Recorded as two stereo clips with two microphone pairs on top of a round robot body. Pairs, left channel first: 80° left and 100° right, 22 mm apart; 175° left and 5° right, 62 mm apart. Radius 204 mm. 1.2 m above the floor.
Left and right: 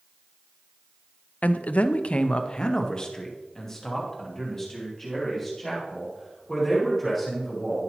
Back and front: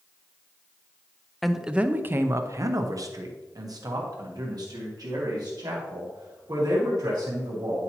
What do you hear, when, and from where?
1.4 s a man speaking: 85° left, 0.6 m; by 7.9 s straight ahead, 3.5 m